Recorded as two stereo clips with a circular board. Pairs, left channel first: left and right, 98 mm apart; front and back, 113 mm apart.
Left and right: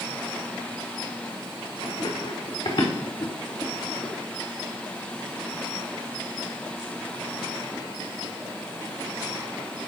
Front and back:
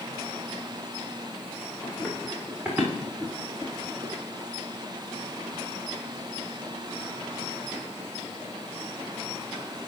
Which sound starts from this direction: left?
Running footsteps, at 1.8 s.